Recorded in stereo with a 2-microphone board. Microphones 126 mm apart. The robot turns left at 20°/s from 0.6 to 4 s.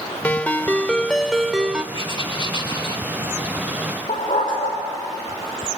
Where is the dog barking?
80° left, 6 m.